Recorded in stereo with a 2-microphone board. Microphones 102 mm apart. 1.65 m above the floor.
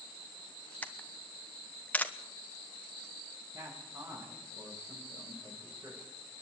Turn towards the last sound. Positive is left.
turn(degrees=-40)  # may be behind; listen again after turning